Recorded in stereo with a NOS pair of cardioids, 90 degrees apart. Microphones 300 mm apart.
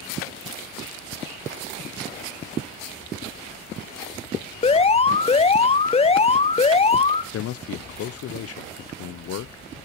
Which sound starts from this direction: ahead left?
A man speaking, at 7.3 s.